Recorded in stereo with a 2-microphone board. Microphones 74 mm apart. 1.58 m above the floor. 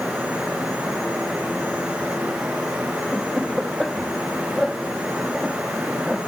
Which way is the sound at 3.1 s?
15° left (ahead or behind).